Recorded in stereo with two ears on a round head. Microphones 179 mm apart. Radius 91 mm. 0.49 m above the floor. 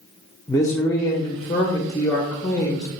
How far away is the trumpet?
I don't hear a trumpet.